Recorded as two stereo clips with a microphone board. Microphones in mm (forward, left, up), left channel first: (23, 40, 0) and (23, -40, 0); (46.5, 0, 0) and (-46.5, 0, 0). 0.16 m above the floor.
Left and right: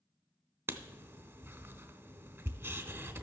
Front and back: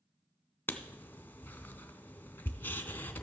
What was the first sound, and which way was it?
Writing, 55° right.